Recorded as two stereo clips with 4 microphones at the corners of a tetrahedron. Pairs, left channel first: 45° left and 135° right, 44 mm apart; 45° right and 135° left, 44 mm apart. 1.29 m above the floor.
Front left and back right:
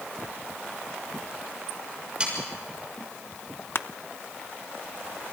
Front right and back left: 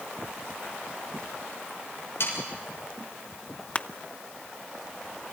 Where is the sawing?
70° right, 6.5 m.